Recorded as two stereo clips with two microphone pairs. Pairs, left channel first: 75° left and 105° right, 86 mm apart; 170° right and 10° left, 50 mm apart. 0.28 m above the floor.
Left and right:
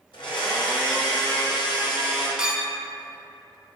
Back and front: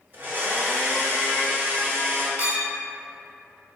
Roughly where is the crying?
No crying in this recording.